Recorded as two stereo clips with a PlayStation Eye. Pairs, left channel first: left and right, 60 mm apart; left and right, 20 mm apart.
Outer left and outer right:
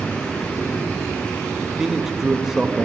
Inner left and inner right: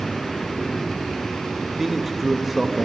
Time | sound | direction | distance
1.6 | a man speaking | 5° right (ahead or behind) | 1.2 m